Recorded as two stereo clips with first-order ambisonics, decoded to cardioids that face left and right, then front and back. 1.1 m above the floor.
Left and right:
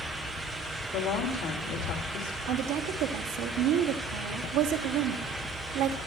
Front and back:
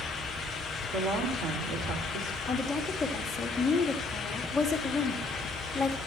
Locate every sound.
0.9 s a woman speaking: 140° left, 3 m
2.5 s a woman speaking: 85° right, 2.5 m